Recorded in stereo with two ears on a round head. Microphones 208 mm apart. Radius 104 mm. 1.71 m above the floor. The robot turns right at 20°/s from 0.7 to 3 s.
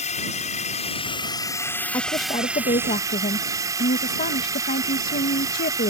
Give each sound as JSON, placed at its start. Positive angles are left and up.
{"t": 0.0, "sound": "a drone", "azimuth_deg": 150}
{"t": 1.9, "sound": "a woman speaking", "side_deg": 15}